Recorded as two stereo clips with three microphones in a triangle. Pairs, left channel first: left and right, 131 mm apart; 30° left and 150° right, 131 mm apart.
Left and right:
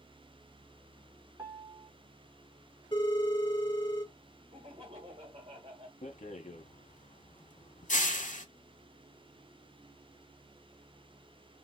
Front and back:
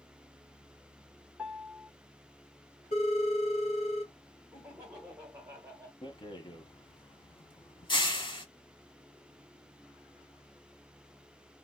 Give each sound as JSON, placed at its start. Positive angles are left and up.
{"t": 1.4, "sound": "a piano", "azimuth_deg": -75, "distance_m": 0.9}
{"t": 2.9, "sound": "a phone ringing", "azimuth_deg": 40, "distance_m": 1.7}
{"t": 4.5, "sound": "laughter", "azimuth_deg": -80, "distance_m": 1.4}
{"t": 6.0, "sound": "a rattle", "azimuth_deg": 80, "distance_m": 0.7}